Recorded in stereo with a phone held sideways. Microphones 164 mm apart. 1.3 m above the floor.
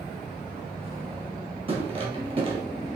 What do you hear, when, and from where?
1.7 s footsteps: 35° right (ahead or behind), 1.8 m